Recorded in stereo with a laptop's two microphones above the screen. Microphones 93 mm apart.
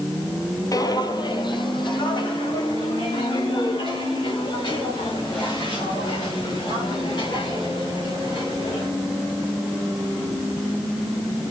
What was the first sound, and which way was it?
Footsteps, 40° left (ahead or behind).